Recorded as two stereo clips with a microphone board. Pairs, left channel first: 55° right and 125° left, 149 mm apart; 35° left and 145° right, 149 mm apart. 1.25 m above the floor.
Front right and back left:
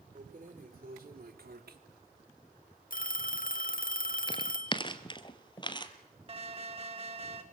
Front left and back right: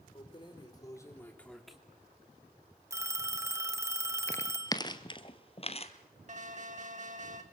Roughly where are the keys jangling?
Left.